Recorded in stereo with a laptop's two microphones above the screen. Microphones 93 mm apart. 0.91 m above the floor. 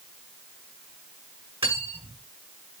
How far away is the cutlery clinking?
About 6 m.